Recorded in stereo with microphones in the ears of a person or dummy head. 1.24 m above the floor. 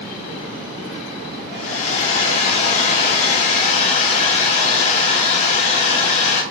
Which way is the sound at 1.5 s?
45° left (ahead or behind).